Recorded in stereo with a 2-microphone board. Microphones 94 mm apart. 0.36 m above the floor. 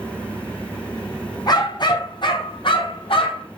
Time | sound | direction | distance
1.5 | a dog barking | 45° left (ahead or behind) | 3.5 m